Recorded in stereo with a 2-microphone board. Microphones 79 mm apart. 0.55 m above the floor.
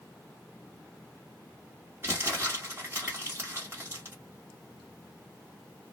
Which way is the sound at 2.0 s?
35° right (ahead or behind).